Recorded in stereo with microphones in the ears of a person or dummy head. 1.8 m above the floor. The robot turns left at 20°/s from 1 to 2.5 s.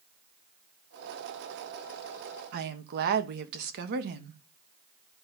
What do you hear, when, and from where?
2.5 s a woman speaking: 55° right (ahead or behind), 1.0 m